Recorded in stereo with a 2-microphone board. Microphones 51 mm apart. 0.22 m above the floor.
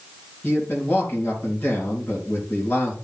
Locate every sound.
0.4 s a man speaking: 40° left (ahead or behind), 3.5 m